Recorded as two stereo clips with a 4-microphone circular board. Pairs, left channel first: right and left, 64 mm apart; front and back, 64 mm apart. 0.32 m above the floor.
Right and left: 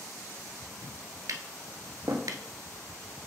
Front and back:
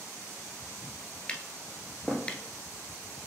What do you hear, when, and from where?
1.3 s tapping: 70° left, 0.7 m